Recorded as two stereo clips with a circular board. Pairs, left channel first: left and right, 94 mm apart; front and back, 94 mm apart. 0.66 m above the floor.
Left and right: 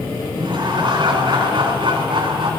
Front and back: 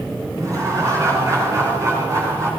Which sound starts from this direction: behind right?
Laughter, at 0.4 s.